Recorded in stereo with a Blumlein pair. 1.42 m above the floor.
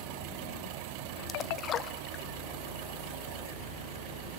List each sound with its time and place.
1.3 s a splash: 30° left, 0.6 m